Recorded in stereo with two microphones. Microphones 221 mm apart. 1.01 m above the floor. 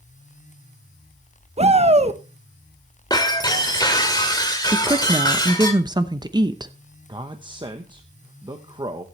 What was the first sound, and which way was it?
A shout, 30° right (ahead or behind).